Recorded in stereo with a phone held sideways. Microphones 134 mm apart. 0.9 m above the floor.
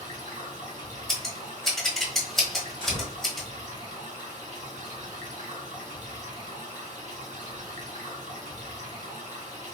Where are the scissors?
Centre (ahead or behind), 1.1 m.